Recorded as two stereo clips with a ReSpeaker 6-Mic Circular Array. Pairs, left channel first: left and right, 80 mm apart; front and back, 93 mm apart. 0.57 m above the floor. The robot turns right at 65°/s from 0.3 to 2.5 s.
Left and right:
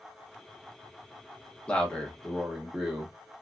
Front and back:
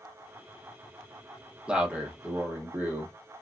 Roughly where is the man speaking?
Behind left.